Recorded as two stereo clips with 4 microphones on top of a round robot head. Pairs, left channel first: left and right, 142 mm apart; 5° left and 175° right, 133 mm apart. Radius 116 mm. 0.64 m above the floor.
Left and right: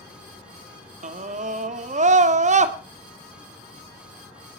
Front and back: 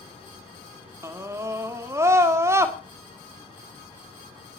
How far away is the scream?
About 2 m.